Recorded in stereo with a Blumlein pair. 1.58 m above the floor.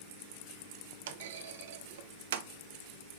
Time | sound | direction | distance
1.1 | a clunk | 55° right | 0.7 m